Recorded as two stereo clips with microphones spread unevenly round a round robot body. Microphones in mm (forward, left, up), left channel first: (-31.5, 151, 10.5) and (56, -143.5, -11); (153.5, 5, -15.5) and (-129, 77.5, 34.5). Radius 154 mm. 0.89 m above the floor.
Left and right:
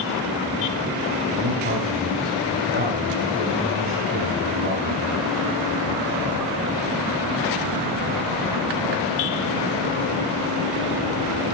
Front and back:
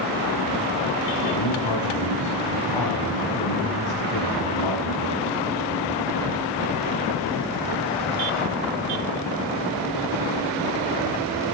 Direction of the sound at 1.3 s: 10° right.